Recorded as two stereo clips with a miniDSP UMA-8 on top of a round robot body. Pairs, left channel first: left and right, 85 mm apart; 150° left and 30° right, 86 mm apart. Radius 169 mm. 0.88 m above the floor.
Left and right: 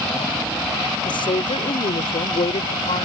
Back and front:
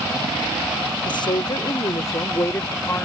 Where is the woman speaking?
120° left; by 3.1 s 80° left.